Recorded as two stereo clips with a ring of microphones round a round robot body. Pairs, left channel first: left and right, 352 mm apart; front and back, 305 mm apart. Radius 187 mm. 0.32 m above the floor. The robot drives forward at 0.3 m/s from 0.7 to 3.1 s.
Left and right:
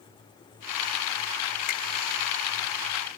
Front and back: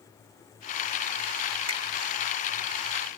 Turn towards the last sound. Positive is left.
turn(degrees=155)